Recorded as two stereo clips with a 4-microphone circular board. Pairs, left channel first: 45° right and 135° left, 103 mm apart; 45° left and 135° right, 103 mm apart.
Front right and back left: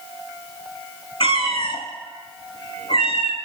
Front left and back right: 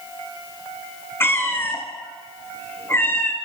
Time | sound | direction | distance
1.2 | a cat meowing | 20° right | 0.9 m